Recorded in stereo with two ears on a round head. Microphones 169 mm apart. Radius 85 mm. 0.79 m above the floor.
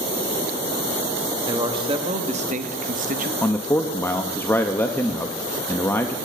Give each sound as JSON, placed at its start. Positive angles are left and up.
{"t": 1.4, "sound": "a man speaking", "side_deg": -20, "distance_m": 1.2}
{"t": 3.4, "sound": "a man speaking", "side_deg": 10, "distance_m": 0.5}